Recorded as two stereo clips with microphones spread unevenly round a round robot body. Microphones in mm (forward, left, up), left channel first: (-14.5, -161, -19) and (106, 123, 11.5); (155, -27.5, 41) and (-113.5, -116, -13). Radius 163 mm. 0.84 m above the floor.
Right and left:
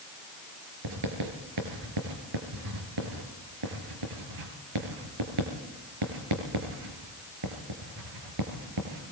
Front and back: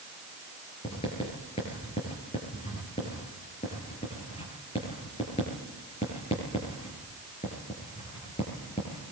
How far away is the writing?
About 5 m.